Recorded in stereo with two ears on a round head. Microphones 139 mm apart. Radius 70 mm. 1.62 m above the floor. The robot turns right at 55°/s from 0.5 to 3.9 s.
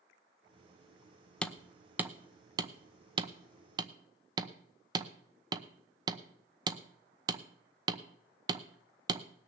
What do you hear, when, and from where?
1.4 s hammering: 5° left (ahead or behind), 0.8 m; by 9.3 s 25° right (ahead or behind), 0.8 m